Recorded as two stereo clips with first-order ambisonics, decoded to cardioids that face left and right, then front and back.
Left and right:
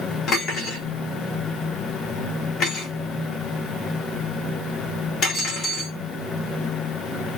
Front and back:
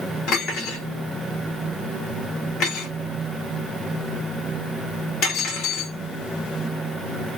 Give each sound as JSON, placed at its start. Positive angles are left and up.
{"t": 0.3, "sound": "cutlery clinking", "azimuth_deg": 35, "distance_m": 1.1}